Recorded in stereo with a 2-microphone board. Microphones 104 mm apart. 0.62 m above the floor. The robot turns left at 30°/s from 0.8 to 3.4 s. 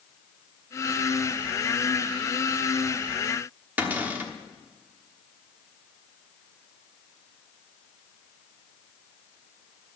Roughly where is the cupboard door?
Centre.